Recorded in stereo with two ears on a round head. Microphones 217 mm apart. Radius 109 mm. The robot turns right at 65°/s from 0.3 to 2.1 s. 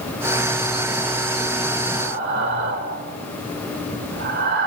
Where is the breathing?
45° right (ahead or behind), 2.0 m; by 4.7 s 50° right (ahead or behind), 2.0 m.